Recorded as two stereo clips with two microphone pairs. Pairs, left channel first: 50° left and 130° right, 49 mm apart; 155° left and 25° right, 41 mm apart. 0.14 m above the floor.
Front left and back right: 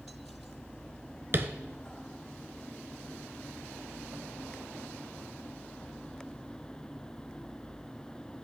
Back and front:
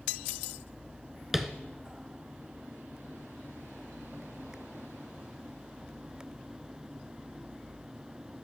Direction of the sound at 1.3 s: 105° right.